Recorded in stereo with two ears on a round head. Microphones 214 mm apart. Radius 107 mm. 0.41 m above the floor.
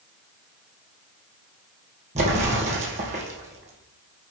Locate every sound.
2.1 s an explosion: 30° right (ahead or behind), 3 m